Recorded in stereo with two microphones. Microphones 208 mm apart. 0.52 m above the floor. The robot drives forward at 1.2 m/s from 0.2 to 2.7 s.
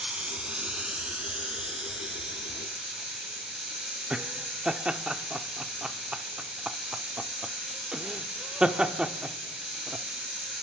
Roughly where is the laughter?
Centre.